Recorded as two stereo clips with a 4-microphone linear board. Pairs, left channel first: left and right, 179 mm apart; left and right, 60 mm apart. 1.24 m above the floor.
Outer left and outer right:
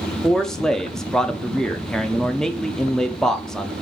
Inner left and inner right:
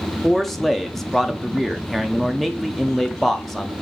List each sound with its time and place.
0.2 s a man speaking: 5° left (ahead or behind), 0.6 m